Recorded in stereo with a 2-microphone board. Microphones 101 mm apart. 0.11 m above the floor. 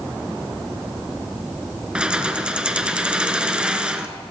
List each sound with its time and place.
1.9 s keys jangling: 10° right (ahead or behind), 0.8 m